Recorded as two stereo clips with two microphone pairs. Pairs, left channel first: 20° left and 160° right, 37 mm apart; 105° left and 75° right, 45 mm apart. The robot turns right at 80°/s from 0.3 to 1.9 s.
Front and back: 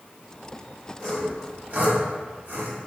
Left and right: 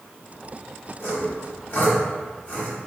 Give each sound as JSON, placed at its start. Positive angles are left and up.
{"t": 1.0, "sound": "sawing", "azimuth_deg": 90, "distance_m": 1.2}